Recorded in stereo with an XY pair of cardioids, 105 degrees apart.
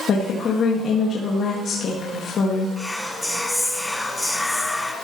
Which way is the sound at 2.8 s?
5° left.